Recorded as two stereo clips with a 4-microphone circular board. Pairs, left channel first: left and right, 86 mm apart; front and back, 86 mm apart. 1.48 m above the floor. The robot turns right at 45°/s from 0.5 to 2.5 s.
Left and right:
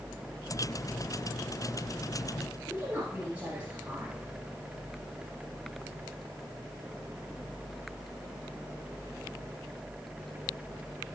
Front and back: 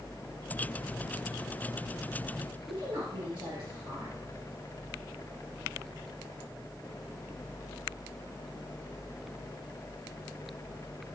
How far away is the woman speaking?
About 2 m.